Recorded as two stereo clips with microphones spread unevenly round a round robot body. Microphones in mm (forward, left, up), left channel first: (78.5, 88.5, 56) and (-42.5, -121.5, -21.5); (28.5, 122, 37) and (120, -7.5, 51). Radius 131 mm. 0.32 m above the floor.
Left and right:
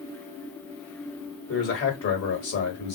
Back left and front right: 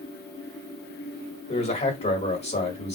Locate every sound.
1.5 s a man speaking: 110° left, 1.7 m